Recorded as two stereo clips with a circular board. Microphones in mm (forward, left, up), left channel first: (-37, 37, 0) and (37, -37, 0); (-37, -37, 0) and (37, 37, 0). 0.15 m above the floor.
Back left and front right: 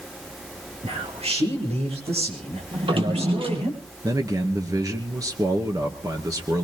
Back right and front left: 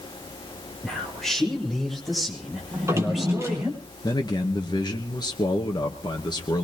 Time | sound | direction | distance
0.8 | a man speaking | 50° right | 6.5 m
2.7 | a drawer | 15° right | 2.5 m
4.0 | a man speaking | 95° right | 2 m